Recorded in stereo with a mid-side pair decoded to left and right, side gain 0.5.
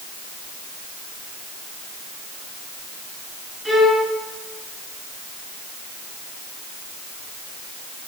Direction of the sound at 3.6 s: 5° right.